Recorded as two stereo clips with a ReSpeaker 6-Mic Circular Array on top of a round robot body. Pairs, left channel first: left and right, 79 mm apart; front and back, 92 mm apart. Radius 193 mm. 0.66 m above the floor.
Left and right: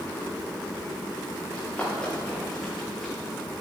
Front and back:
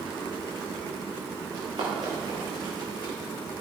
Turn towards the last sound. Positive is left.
turn(degrees=180)